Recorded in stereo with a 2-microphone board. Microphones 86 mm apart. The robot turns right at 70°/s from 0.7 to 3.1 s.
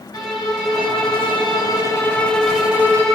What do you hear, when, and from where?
0.1 s a violin: 55° left, 1.9 m; by 3.1 s 135° right, 1.9 m